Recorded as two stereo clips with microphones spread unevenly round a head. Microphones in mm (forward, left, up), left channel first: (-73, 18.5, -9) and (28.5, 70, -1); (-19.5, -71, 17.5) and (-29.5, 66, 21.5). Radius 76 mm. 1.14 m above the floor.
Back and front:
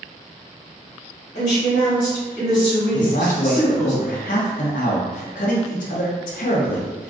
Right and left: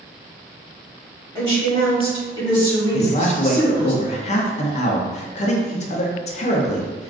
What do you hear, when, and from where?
1.4 s a woman speaking: 135° right, 1.1 m
2.9 s a man speaking: 125° right, 0.5 m